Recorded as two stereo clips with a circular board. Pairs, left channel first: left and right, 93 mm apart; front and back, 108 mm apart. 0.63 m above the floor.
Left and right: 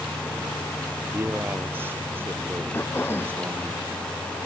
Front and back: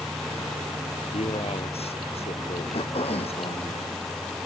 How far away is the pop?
I don't hear a pop.